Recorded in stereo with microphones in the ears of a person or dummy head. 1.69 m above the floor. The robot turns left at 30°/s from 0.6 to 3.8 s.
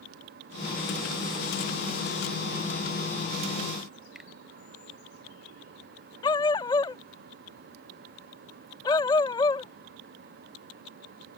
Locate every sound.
4.2 s a finger snap: 5° right (ahead or behind)
6.2 s a dog barking: 20° left (ahead or behind)